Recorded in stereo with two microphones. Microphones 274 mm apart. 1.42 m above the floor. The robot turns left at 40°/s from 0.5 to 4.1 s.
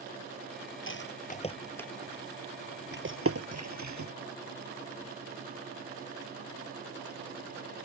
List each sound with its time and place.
0.9 s a rattle: 45° left (ahead or behind); by 4.1 s 80° right